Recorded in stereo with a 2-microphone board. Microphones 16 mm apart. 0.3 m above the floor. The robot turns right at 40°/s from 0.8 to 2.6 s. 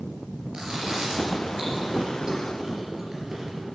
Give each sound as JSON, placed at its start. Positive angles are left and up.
{"t": 0.5, "sound": "chewing", "side_deg": -70, "distance_m": 3.5}